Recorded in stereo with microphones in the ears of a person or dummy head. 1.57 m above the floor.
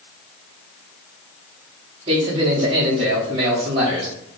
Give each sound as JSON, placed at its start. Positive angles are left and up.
{"t": 2.1, "sound": "a man speaking", "side_deg": -30, "distance_m": 0.8}